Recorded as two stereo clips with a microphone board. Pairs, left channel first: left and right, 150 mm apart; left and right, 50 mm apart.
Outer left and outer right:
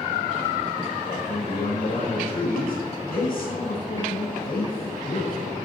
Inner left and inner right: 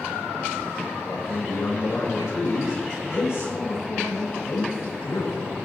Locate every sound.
1.0 s a man speaking: 75° left (ahead or behind), 4.5 m